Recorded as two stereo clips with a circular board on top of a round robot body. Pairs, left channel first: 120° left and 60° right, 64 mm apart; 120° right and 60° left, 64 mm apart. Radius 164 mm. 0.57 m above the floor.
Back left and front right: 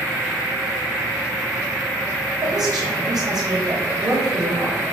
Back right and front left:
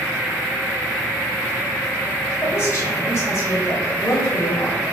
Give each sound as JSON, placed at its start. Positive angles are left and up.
{"t": 2.4, "sound": "a woman speaking", "azimuth_deg": -70, "distance_m": 4.0}